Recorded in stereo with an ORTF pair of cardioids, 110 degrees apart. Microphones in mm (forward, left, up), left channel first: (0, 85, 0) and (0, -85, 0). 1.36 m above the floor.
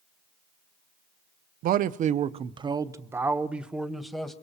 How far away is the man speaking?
About 0.8 m.